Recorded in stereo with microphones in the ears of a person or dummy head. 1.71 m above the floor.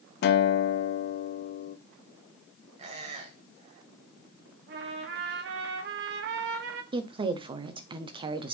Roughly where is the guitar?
Left.